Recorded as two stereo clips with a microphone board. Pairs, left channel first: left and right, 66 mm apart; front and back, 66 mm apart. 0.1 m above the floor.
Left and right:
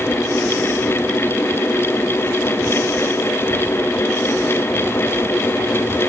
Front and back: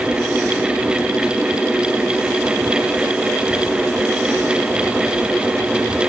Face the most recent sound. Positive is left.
No sound to turn to.